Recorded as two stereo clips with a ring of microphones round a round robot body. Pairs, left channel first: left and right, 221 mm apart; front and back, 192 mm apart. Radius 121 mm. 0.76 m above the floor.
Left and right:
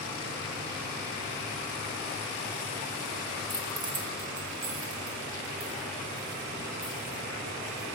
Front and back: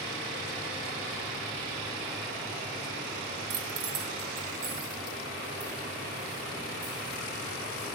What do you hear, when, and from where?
3.5 s keys jangling: straight behind, 0.7 m; by 7.8 s 140° right, 6 m